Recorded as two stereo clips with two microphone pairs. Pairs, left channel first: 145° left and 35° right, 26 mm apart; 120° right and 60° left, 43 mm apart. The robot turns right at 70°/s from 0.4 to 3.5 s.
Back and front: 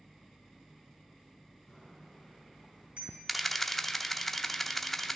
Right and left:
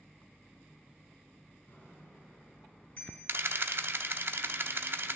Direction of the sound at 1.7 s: 150° right.